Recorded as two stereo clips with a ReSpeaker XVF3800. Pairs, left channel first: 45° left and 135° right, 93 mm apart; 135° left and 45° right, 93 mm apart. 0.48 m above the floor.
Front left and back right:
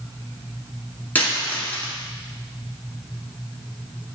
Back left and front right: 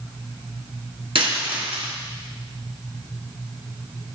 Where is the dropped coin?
30° right, 2.5 m.